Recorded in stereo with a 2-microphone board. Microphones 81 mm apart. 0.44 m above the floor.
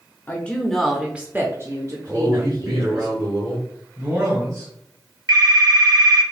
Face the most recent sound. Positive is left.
turn(degrees=-50)  # may be behind; listen again after turning